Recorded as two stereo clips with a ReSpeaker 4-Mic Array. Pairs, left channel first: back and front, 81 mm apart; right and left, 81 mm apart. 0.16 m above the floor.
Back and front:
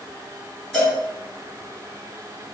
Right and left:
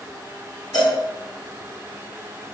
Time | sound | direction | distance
0.7 | a cowbell | 90° right | 1.7 m